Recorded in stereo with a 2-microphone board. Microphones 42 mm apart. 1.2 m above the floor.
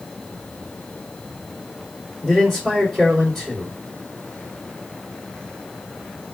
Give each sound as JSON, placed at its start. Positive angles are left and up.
{"t": 2.2, "sound": "a man speaking", "side_deg": 15, "distance_m": 2.0}